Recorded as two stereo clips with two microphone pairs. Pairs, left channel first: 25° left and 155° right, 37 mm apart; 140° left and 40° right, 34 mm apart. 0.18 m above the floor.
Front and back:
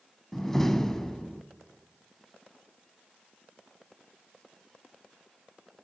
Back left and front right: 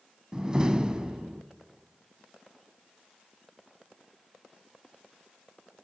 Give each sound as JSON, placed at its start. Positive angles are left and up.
{"t": 0.3, "sound": "a door slam", "azimuth_deg": -30, "distance_m": 0.7}